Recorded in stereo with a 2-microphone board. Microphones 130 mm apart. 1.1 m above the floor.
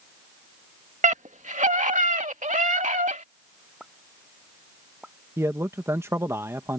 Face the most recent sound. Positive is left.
turn(degrees=-20)  # may be behind; listen again after turning